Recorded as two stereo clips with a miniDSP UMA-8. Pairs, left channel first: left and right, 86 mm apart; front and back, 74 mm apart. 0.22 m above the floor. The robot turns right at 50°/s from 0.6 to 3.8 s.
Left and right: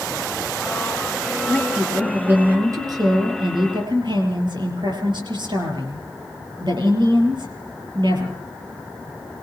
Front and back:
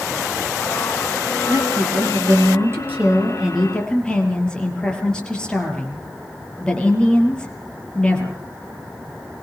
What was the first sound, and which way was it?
A woman speaking, 165° left.